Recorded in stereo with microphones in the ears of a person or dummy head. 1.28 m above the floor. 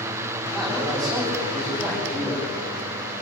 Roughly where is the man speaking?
Centre.